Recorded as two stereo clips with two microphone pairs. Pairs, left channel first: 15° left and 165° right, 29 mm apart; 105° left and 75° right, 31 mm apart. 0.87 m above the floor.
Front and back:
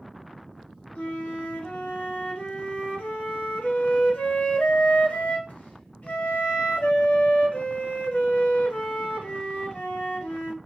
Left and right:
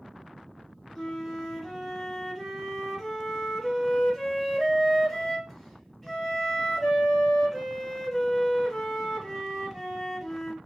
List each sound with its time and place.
0.9 s a flute: 15° left, 1.1 m